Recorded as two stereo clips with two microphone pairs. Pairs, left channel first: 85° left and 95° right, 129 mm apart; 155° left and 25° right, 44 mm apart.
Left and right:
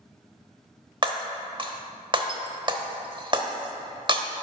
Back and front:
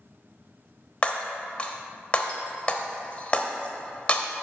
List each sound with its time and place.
1.0 s breaking glass: 145° right, 0.7 m